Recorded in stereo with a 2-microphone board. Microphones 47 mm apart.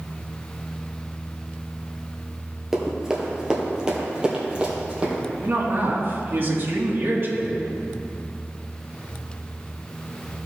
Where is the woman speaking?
55° right (ahead or behind), 2 m.